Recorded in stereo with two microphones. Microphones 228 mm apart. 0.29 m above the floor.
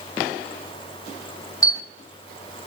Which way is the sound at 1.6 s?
15° left (ahead or behind).